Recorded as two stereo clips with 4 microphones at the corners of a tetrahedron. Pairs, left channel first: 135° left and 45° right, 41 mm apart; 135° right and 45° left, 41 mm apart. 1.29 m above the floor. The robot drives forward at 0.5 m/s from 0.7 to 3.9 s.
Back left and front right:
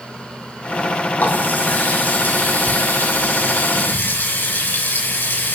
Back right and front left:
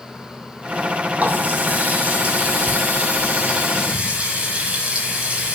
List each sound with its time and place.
1.2 s a running tap: 100° left, 6 m; by 5.6 s 110° left, 6.5 m